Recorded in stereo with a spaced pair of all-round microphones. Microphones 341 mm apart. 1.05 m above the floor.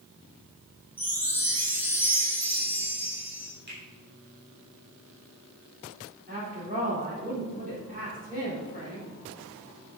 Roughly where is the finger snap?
Right.